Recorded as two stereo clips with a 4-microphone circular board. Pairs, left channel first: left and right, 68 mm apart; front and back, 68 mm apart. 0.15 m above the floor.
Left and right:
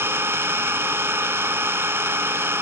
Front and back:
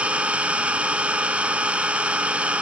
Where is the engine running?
120° right, 0.7 m.